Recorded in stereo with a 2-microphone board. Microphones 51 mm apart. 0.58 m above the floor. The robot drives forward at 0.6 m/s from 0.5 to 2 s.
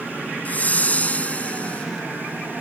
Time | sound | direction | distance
0.5 | a whoosh | 35° left (ahead or behind) | ?